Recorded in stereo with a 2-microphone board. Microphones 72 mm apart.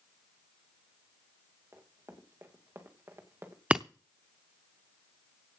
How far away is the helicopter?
I don't hear a helicopter.